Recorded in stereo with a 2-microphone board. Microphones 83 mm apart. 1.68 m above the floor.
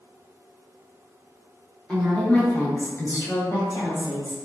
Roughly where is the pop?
I don't hear a pop.